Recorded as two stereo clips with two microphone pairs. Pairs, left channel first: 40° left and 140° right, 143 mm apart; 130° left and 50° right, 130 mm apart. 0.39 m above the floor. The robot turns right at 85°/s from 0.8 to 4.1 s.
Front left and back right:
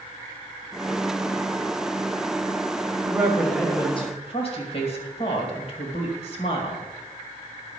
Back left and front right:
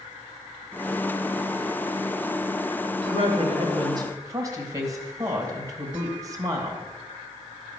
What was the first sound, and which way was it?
A woman speaking, 80° right.